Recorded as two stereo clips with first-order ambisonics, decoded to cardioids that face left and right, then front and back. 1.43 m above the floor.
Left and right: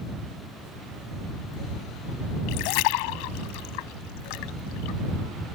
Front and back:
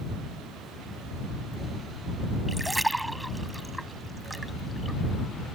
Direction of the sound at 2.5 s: 95° left.